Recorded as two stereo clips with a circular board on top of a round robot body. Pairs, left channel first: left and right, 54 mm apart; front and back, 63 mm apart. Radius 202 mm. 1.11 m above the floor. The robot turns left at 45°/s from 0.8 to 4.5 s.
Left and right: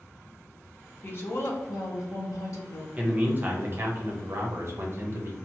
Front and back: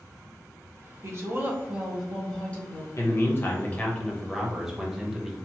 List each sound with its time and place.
1.0 s a woman speaking: 135° left, 0.9 m; by 2.9 s 55° left, 0.9 m
3.0 s a man speaking: 30° right, 0.8 m; by 5.3 s 95° right, 0.8 m